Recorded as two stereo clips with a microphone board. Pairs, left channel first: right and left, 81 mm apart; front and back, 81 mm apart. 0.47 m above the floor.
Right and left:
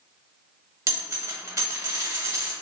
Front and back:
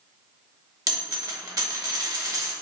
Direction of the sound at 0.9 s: 140° left.